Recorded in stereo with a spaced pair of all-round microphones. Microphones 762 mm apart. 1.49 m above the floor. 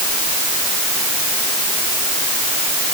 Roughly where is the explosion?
I don't hear an explosion.